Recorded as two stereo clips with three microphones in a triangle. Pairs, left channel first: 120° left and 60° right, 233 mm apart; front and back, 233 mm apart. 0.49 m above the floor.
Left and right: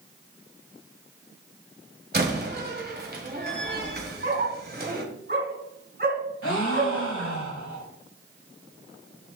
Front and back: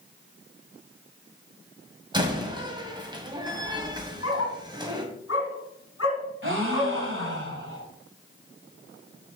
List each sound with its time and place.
2.1 s a door slam: 110° right, 1.7 m
4.2 s a dog barking: 15° right, 1.8 m
6.4 s a gasp: 145° left, 1.9 m